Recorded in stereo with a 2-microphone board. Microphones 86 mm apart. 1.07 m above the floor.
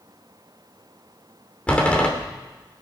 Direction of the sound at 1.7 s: 15° left (ahead or behind).